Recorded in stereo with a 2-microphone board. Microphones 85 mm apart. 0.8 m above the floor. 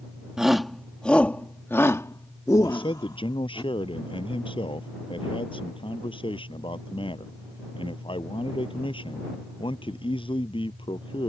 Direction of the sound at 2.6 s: 85° left.